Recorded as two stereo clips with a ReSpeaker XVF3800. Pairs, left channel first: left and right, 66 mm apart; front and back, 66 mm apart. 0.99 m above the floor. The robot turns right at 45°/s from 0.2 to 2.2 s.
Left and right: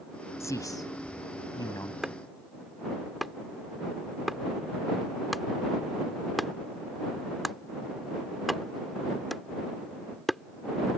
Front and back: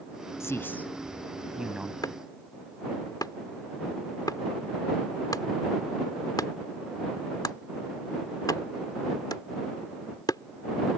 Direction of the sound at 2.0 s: 10° right.